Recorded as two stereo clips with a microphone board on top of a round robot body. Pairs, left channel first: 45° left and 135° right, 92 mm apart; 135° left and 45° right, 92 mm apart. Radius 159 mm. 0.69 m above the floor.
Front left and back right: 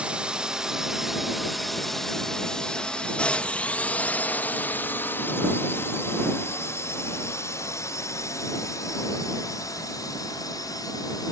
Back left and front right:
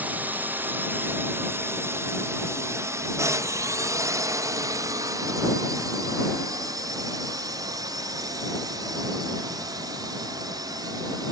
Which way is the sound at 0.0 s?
75° right.